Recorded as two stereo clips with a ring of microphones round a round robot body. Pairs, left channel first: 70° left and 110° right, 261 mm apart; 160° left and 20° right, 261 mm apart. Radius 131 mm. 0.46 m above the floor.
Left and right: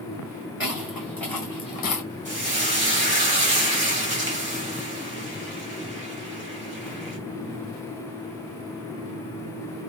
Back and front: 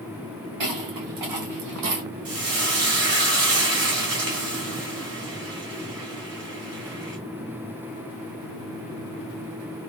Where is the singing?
I don't hear singing.